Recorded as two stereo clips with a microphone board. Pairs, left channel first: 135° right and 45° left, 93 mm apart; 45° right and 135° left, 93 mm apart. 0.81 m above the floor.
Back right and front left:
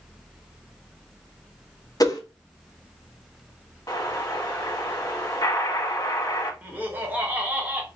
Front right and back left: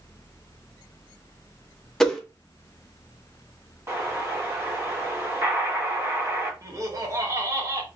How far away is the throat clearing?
I don't hear throat clearing.